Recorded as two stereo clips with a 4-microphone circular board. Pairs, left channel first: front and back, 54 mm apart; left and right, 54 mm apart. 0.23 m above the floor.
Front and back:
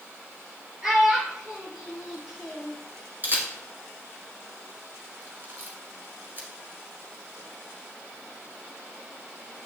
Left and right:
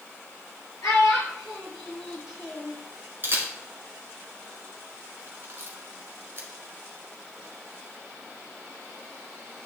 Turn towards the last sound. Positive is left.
turn(degrees=-135)